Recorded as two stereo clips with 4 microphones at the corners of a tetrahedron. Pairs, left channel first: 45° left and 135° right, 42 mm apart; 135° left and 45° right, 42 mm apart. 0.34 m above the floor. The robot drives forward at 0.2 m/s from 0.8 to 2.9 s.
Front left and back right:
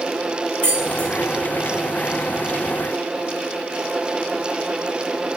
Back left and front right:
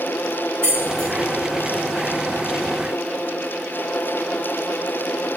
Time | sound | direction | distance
0.6 | keys jangling | 80° left | 1.1 m